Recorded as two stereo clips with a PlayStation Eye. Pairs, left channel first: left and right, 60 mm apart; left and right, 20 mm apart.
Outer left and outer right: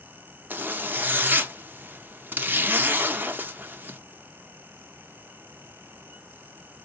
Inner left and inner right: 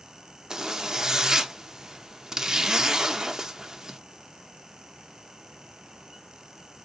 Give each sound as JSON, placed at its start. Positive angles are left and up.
{"t": 0.5, "sound": "a zipper", "side_deg": -30, "distance_m": 0.7}